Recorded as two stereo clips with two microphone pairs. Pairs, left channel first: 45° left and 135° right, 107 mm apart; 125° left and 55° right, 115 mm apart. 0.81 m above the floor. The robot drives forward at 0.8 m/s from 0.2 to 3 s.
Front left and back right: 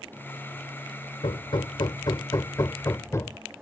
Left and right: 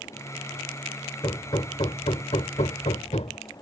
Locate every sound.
1.2 s hammering: 75° left; by 3.4 s 110° left